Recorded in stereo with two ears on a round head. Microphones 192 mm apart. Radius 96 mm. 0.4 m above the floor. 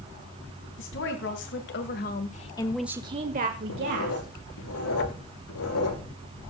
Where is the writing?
80° left, 6 m.